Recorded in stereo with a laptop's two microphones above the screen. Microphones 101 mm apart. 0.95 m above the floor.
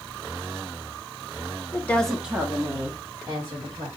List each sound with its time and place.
1.7 s a woman speaking: 25° left (ahead or behind), 0.8 m; by 3.9 s 40° right (ahead or behind), 2 m